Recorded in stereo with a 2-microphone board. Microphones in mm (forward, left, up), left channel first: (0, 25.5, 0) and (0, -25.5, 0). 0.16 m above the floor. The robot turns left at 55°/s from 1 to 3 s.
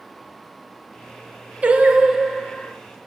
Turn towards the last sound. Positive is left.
turn(degrees=145)